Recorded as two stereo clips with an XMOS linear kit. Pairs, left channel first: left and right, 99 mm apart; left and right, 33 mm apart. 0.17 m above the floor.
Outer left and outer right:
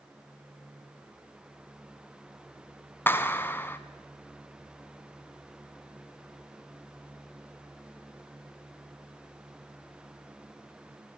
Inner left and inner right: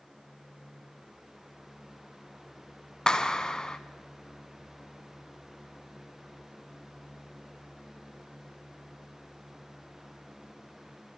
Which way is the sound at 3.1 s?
25° left (ahead or behind).